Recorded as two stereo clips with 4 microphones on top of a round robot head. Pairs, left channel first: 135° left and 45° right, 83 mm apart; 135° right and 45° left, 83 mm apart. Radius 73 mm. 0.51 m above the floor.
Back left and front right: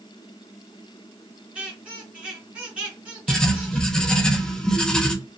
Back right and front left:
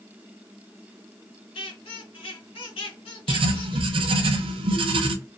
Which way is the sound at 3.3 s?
55° left.